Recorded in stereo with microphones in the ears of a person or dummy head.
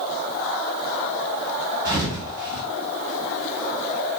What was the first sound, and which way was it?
A thud, 10° right (ahead or behind).